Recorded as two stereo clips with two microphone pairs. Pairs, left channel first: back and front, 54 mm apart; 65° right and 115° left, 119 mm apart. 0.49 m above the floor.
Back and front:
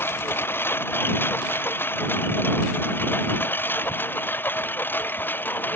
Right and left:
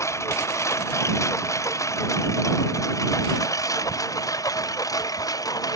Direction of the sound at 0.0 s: 135° right.